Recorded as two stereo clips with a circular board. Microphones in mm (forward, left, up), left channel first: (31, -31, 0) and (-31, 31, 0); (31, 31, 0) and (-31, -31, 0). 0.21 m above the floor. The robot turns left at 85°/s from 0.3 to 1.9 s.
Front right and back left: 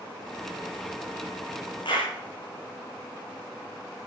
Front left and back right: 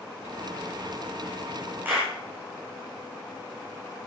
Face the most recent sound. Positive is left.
turn(degrees=-70)